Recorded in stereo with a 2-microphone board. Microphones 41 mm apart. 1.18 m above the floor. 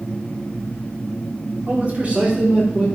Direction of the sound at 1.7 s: 40° right (ahead or behind).